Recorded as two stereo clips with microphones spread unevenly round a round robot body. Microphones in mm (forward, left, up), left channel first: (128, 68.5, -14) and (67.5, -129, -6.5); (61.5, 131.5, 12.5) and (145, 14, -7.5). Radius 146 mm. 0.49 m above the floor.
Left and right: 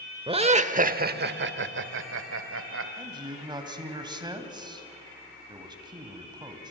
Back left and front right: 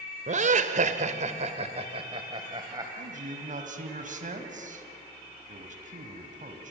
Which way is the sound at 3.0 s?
40° right.